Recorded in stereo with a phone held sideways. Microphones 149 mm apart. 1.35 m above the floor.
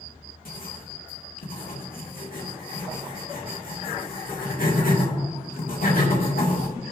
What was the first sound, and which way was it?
Writing, 75° left (ahead or behind).